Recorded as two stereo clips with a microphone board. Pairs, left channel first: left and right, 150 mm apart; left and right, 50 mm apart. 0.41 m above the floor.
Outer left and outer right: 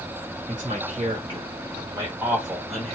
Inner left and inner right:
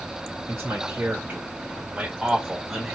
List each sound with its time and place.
0.5 s a man speaking: 45° right (ahead or behind), 1.8 m; by 3.0 s 5° left (ahead or behind), 1.7 m